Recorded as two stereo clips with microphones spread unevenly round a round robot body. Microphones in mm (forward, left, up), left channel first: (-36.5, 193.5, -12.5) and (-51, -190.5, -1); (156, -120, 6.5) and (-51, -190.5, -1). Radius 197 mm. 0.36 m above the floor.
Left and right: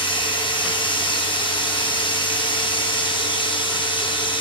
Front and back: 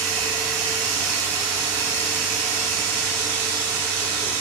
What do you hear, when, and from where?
0.0 s running water: 165° left, 1.7 m